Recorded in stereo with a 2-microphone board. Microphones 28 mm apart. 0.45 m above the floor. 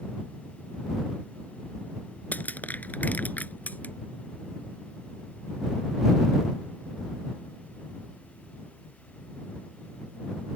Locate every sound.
2.3 s crushing: 70° left (ahead or behind)